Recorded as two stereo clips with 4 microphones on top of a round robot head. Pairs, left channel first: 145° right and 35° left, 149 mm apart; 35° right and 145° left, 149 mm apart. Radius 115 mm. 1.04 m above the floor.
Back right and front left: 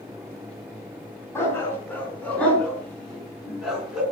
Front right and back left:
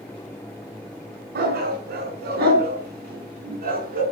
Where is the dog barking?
140° left, 6 m; by 4.0 s 120° left, 6 m.